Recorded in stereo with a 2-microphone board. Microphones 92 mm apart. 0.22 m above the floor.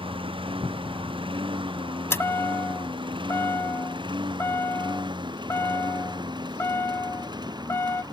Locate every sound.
0.0 s a lawn mower: 70° right (ahead or behind); by 8.1 s 50° right (ahead or behind)
2.1 s a chime: 25° left (ahead or behind)